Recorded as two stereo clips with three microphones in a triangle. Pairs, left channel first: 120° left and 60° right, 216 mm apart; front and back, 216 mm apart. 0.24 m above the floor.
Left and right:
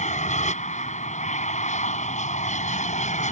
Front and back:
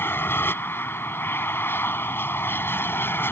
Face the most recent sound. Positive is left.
turn(degrees=75)